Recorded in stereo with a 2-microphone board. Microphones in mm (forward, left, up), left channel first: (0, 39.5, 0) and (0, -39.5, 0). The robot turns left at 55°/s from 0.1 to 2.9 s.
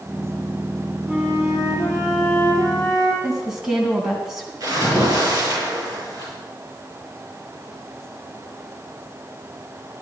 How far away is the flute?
About 4.5 m.